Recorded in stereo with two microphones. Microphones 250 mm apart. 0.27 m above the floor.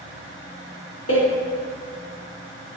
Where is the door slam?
65° left (ahead or behind), 2 m.